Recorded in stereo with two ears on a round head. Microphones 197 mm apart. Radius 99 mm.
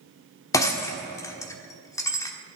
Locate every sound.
0.5 s breaking glass: 15° left (ahead or behind), 1.3 m